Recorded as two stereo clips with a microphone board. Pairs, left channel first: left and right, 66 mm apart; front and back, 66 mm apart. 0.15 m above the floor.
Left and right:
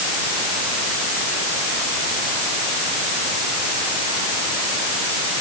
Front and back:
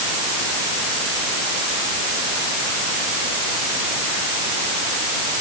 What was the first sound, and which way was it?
Only background noise.